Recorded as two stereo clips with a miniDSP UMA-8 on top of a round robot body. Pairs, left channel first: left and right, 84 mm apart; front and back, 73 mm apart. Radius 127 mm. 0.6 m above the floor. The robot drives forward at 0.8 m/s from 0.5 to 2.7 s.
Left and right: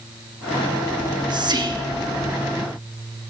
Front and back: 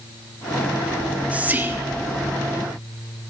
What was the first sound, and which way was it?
Whispering, 100° right.